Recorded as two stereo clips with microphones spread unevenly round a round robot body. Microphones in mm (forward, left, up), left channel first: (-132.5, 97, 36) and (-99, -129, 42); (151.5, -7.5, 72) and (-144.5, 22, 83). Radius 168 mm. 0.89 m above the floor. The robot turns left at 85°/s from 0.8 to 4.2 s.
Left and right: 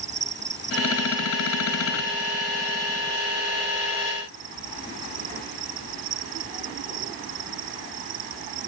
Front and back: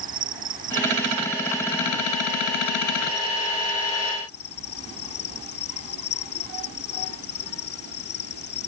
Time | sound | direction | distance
0.0 | an insect | 120° right | ?